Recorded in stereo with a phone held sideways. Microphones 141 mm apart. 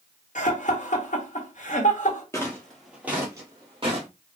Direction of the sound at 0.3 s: 60° left (ahead or behind).